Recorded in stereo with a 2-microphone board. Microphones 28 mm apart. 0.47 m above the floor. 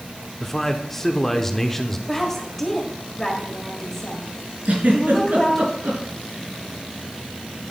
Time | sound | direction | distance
0.4 | a man speaking | 15° left (ahead or behind) | 0.8 m
2.1 | a woman speaking | 15° left (ahead or behind) | 1.6 m
4.7 | a giggle | 85° right | 3.5 m